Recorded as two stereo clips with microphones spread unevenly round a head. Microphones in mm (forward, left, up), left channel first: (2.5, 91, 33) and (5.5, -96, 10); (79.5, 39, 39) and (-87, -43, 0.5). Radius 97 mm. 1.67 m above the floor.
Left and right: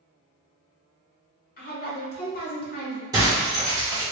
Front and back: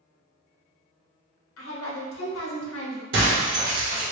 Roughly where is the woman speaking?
Ahead left.